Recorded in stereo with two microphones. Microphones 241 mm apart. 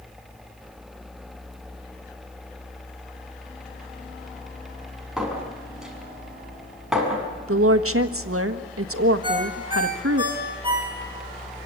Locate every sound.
5.2 s a clink: centre (ahead or behind), 6 m
7.5 s a woman speaking: 65° right (ahead or behind), 1.4 m
9.2 s a ringtone: 20° right (ahead or behind), 6.5 m